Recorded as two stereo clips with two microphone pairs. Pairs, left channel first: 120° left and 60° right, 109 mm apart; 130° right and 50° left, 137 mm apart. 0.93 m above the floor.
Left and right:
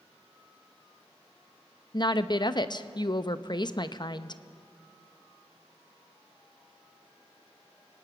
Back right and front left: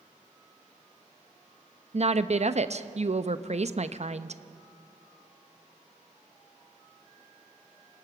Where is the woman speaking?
80° left, 0.7 m.